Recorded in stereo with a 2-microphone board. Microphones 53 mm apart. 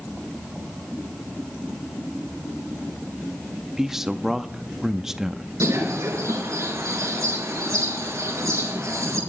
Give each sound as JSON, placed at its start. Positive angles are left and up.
{"t": 3.8, "sound": "a man speaking", "side_deg": -10, "distance_m": 0.7}
{"t": 5.6, "sound": "a bird", "side_deg": -80, "distance_m": 4.5}